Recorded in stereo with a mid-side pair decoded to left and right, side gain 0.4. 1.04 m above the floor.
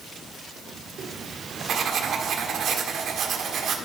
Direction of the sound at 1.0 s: 65° right.